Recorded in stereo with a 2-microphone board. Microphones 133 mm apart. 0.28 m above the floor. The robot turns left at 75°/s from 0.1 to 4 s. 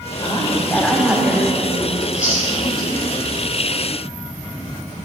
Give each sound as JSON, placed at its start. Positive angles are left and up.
{"t": 0.2, "sound": "a woman speaking", "azimuth_deg": 60, "distance_m": 1.3}
{"t": 2.0, "sound": "chewing", "side_deg": 75, "distance_m": 3.0}